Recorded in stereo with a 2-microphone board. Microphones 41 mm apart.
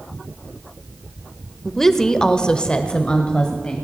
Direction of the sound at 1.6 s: 5° left (ahead or behind).